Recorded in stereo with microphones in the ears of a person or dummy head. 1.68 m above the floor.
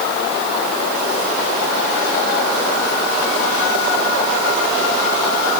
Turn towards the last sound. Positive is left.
No sound to turn to.